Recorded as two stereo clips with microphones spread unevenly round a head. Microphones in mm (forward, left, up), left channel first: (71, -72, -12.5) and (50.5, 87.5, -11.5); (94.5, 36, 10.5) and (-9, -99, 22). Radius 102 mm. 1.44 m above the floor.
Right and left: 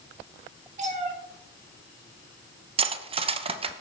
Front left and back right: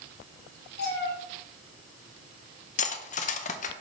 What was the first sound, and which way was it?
A cat meowing, 65° left.